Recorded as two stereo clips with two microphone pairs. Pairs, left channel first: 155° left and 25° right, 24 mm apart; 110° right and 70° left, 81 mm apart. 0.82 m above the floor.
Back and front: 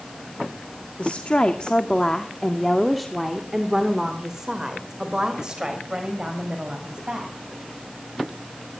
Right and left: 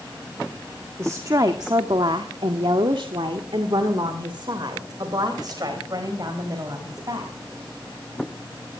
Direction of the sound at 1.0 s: 125° left.